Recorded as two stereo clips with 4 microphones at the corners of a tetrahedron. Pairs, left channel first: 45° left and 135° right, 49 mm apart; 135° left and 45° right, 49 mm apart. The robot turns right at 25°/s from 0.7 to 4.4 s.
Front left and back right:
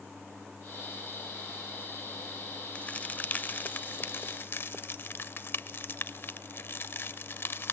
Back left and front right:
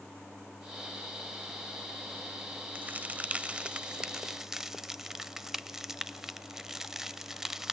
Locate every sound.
2.8 s a crack: 10° right, 0.6 m; by 7.7 s 35° left, 0.6 m